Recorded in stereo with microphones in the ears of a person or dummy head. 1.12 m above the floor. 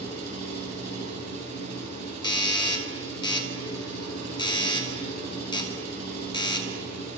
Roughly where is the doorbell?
Left.